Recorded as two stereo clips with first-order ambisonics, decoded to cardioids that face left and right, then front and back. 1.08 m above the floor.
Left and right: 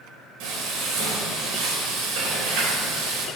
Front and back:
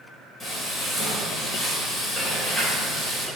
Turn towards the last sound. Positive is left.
turn(degrees=-75)